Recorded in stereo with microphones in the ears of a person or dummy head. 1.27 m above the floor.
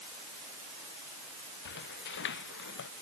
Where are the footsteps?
60° left (ahead or behind); by 2.9 s 65° left (ahead or behind).